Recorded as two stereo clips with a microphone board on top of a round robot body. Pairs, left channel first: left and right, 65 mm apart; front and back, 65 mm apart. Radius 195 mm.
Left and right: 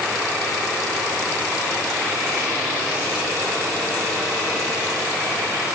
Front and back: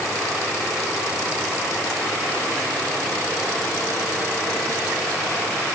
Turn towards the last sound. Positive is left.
No sound to turn to.